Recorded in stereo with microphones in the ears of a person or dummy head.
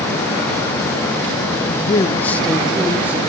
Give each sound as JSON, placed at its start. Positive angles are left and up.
{"t": 1.7, "sound": "a man speaking", "side_deg": 45, "distance_m": 1.2}